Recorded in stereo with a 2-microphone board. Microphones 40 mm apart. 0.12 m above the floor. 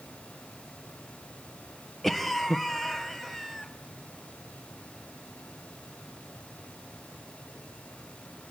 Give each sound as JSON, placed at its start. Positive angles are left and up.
{"t": 2.0, "sound": "a cough", "side_deg": 0, "distance_m": 2.0}